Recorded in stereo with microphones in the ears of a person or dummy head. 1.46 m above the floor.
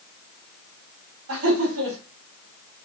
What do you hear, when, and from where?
1.3 s laughter: 75° right (ahead or behind), 4 m